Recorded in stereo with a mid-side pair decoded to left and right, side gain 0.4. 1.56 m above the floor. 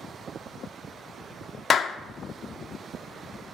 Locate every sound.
1.7 s a clap: 55° left, 0.5 m